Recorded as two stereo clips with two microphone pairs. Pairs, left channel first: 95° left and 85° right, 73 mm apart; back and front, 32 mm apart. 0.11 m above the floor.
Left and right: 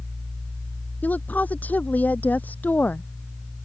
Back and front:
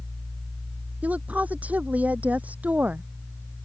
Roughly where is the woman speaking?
Ahead left.